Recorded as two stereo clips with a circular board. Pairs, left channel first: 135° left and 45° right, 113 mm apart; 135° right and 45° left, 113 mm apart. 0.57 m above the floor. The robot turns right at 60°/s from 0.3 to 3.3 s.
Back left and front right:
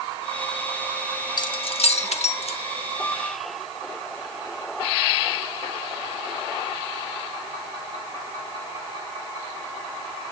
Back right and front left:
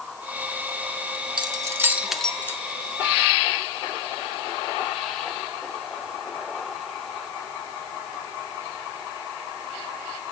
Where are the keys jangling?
85° left, 1.1 m; by 2.6 s 160° left, 1.1 m.